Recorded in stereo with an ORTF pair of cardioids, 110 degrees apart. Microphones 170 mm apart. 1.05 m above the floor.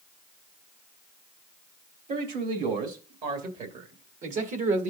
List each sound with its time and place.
2.1 s a man speaking: 60° right, 3 m; by 4.9 s 55° right, 1.5 m